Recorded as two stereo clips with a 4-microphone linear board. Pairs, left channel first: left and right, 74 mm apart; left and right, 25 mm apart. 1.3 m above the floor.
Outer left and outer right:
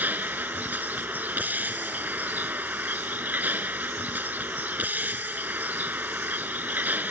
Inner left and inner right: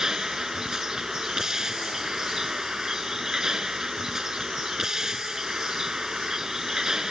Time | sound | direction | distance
0.0 | a vehicle | 25° right (ahead or behind) | ?